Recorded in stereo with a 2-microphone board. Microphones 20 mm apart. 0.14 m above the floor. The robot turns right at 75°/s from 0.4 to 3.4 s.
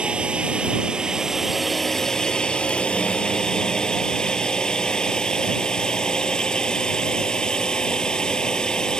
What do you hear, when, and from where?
0.0 s a drone: 95° right; by 9.0 s 130° left